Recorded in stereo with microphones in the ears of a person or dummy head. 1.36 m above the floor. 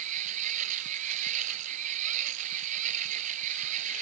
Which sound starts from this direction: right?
A machine running, at 0.0 s.